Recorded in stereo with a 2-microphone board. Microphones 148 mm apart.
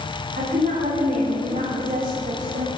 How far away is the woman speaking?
About 4.5 m.